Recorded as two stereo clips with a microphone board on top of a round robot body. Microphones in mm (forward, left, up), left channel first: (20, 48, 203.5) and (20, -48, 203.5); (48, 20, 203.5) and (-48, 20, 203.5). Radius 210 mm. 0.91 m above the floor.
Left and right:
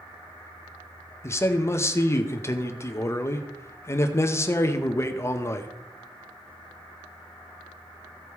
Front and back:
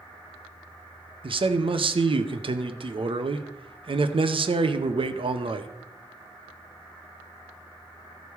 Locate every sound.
1.2 s a man speaking: 150° left, 0.9 m